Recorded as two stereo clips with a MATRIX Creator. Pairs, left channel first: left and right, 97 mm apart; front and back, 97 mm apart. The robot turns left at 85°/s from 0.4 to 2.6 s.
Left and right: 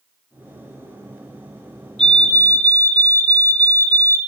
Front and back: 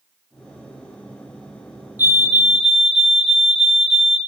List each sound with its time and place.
2.0 s a fire alarm: 155° left, 1.9 m; by 4.2 s 105° left, 1.9 m